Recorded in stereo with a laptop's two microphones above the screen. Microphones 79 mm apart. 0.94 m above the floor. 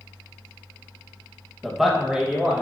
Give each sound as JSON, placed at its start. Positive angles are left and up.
{"t": 1.6, "sound": "a man speaking", "side_deg": 0, "distance_m": 0.6}